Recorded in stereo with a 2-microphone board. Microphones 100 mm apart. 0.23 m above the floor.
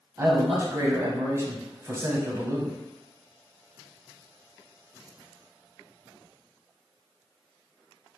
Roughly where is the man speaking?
Right.